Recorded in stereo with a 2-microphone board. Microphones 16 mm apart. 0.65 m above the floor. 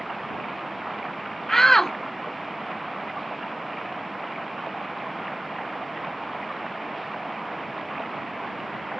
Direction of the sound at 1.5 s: 20° left (ahead or behind).